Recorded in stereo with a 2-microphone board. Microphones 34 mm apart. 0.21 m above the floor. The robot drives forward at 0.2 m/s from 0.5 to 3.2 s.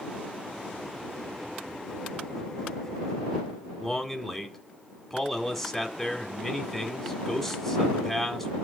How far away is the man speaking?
About 1.6 m.